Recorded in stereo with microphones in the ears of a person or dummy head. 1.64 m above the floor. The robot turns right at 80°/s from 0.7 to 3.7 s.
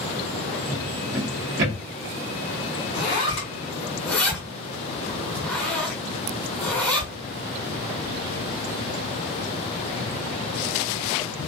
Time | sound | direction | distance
0.7 | a drawer | 5° right (ahead or behind) | 0.9 m
2.9 | a zipper | 55° left (ahead or behind) | 1.0 m